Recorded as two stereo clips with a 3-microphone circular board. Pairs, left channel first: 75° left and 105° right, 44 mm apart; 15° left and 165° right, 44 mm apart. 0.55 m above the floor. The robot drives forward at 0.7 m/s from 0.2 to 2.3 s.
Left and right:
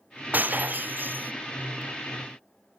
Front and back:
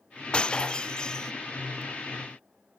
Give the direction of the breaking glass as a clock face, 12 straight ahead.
2 o'clock.